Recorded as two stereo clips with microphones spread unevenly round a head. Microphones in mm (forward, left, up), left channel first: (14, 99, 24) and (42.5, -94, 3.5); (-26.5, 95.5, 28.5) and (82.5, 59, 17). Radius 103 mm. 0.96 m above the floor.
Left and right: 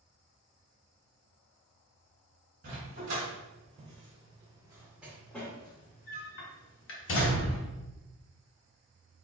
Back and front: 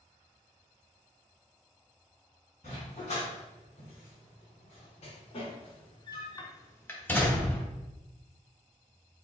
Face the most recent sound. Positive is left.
turn(degrees=85)